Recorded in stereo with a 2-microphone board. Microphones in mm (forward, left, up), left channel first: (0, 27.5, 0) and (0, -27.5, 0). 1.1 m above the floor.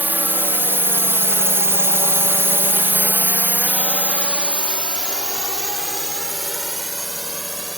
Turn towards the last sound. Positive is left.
turn(degrees=-5)  # may be behind; listen again after turning